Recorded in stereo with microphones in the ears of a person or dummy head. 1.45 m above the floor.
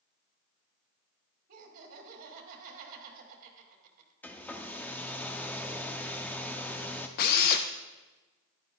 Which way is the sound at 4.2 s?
10° left (ahead or behind).